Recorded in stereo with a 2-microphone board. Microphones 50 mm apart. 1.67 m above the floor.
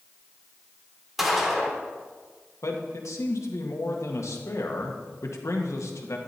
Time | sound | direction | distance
1.2 | a gunshot | 5° right (ahead or behind) | 3 m
2.6 | a man speaking | 85° left | 2 m